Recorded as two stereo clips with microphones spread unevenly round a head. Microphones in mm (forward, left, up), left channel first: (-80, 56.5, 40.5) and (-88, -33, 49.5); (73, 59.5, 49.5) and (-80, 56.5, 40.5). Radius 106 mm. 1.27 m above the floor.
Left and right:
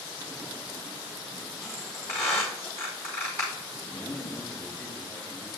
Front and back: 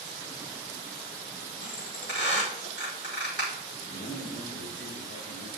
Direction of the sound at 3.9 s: 5° right.